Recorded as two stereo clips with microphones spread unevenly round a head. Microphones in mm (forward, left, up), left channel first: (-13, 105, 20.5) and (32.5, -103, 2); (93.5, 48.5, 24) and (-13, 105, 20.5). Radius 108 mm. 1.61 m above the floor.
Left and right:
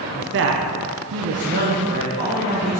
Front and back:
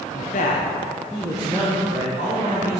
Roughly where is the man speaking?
Ahead right.